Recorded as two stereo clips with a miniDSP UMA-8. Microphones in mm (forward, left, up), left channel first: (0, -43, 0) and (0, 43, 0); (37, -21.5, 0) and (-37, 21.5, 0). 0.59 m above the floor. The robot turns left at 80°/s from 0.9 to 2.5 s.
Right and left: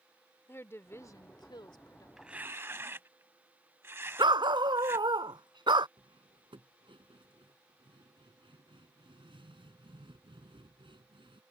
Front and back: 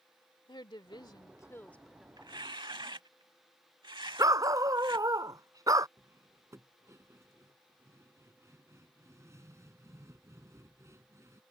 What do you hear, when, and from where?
0.5 s a woman speaking: 35° right; by 2.1 s 130° right
2.2 s tearing paper: 175° left; by 5.1 s 145° left
4.2 s a dog barking: 105° left
6.0 s cutlery clinking: 95° left